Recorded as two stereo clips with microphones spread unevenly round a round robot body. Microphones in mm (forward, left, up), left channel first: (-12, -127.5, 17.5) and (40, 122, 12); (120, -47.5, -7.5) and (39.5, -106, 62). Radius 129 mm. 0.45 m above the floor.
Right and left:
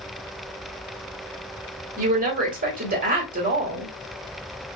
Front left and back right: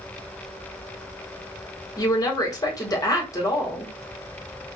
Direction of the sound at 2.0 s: 25° left.